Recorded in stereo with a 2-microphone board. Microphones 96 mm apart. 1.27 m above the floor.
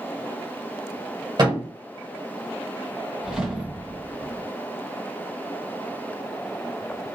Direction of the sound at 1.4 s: 50° right (ahead or behind).